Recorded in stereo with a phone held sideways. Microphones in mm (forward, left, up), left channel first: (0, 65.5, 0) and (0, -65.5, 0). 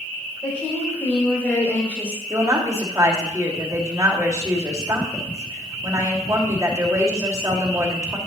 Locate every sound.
0.4 s a woman speaking: 10° left (ahead or behind), 4 m; by 2.2 s 15° left (ahead or behind), 5 m
2.3 s a woman speaking: 25° right (ahead or behind), 2 m